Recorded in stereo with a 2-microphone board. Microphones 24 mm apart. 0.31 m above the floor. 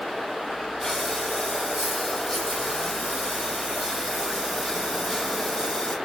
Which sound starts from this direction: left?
Breathing, at 0.8 s.